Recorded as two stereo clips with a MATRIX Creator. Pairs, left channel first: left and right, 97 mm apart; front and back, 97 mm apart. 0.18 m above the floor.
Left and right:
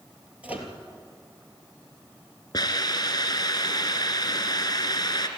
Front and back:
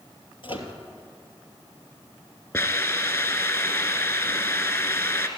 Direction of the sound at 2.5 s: 50° left.